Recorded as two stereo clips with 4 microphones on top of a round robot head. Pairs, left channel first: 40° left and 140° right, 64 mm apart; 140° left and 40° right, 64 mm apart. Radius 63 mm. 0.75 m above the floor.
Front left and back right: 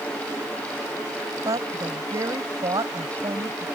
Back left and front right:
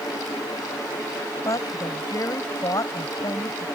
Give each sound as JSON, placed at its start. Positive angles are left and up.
{"t": 1.4, "sound": "a woman speaking", "azimuth_deg": -175}